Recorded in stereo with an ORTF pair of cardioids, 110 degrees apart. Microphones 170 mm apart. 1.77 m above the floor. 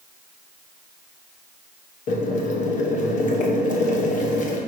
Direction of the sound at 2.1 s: 50° left.